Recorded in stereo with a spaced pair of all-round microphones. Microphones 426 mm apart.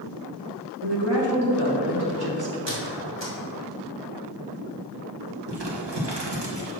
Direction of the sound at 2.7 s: 75° right (ahead or behind).